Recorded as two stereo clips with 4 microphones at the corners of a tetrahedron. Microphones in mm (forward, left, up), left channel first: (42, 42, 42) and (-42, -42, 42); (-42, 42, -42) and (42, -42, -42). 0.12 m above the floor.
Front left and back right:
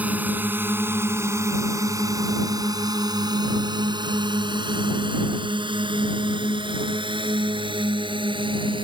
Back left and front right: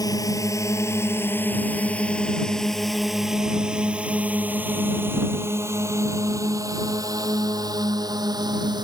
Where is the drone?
160° left; by 8.8 s 95° right.